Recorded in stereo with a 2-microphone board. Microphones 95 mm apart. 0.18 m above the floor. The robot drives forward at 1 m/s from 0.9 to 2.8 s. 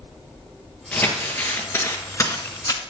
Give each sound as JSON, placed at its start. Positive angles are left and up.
{"t": 0.9, "sound": "crumpling", "side_deg": 20, "distance_m": 2.5}